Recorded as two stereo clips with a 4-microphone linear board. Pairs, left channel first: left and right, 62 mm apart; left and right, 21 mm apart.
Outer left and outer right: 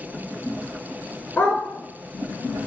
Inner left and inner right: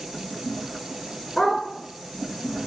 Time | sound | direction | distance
1.4 | a dog barking | 25° left (ahead or behind) | 1.9 m